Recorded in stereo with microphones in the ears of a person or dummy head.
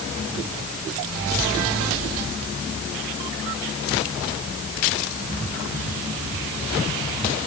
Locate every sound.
Only background noise.